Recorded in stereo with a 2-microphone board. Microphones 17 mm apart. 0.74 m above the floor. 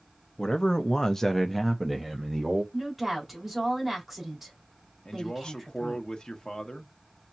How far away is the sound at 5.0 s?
About 1.0 m.